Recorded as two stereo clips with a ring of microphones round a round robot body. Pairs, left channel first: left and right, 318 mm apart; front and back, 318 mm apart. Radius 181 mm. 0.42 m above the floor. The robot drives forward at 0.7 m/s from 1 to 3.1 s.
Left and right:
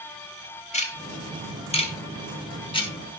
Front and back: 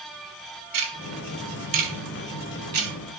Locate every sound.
0.7 s ticking: 160° left, 3 m; by 2.9 s 165° left, 4.5 m